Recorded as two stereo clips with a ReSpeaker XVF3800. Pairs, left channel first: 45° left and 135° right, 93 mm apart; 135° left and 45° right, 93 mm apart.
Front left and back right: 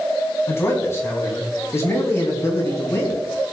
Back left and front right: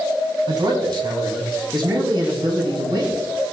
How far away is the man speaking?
About 3 m.